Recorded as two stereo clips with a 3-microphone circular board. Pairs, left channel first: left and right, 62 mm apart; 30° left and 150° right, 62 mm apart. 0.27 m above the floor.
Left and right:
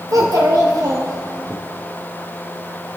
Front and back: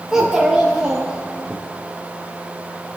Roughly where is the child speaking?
Right.